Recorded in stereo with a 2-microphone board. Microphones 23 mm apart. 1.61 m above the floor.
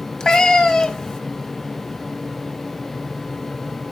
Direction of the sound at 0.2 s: 25° left (ahead or behind).